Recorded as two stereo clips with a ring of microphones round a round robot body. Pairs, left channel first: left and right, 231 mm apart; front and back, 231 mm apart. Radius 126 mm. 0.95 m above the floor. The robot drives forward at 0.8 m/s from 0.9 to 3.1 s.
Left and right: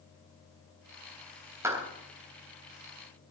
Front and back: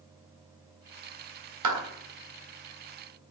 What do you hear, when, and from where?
1.6 s a clap: 170° right, 3.5 m